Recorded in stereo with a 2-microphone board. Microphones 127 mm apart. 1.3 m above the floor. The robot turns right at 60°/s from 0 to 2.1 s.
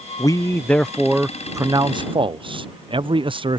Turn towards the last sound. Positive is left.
turn(degrees=-115)